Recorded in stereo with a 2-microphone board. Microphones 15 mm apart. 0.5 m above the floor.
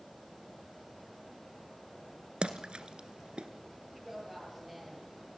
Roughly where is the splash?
Right.